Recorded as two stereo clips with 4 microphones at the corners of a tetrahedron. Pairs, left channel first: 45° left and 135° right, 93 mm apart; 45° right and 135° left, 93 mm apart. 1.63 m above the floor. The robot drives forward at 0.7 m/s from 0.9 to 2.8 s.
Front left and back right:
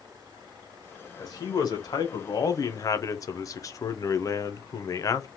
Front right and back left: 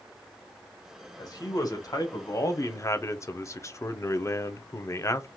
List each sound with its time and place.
1.2 s a man speaking: straight ahead, 1.6 m; by 5.3 s 5° left, 0.5 m